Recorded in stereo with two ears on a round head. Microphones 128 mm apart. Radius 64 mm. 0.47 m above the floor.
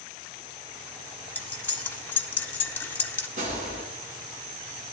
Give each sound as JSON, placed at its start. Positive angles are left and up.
{"t": 1.4, "sound": "cutlery clinking", "side_deg": 15, "distance_m": 0.6}
{"t": 3.4, "sound": "a gunshot", "side_deg": -55, "distance_m": 2.0}